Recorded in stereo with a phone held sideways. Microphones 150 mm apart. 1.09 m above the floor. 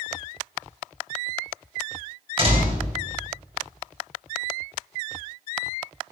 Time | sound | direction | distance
2.4 | a door slam | 40° right (ahead or behind) | 5.5 m